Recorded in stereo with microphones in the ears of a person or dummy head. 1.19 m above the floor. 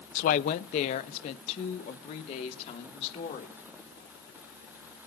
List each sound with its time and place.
0.1 s a woman speaking: 60° left (ahead or behind), 0.6 m; by 3.5 s 50° left (ahead or behind), 3 m